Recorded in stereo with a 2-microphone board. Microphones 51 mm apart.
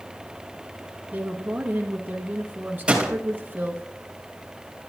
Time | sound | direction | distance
1.1 | a woman speaking | 35° right (ahead or behind) | 1.3 m
2.9 | a gunshot | 20° right (ahead or behind) | 3 m